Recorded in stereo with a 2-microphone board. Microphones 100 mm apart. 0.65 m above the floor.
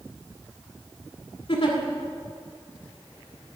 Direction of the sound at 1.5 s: 60° left (ahead or behind).